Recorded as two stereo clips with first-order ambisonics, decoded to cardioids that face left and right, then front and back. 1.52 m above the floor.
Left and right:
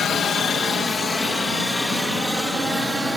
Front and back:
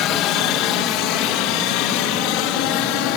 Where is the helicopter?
30° left; by 3.2 s 5° right.